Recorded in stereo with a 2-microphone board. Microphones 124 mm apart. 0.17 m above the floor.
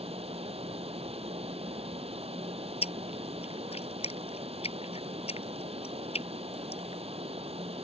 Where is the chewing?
55° left (ahead or behind).